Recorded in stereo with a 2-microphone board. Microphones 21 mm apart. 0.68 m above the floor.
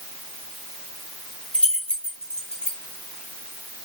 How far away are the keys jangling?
About 1.4 m.